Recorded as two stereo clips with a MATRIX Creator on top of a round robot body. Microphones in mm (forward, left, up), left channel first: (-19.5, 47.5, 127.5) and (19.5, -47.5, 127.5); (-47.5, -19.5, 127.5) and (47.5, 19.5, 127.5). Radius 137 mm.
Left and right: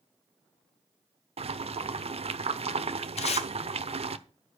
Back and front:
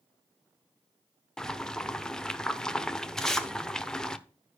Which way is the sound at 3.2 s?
115° left.